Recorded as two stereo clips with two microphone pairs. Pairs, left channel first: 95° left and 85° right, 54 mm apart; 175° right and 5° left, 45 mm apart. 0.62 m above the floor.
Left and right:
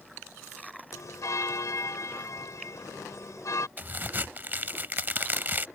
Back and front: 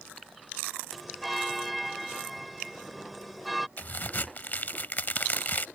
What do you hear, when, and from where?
0.9 s a bell: 90° left
3.8 s a crack: 135° right